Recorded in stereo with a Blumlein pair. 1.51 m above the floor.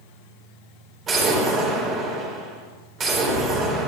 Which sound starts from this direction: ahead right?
An explosion, at 1.1 s.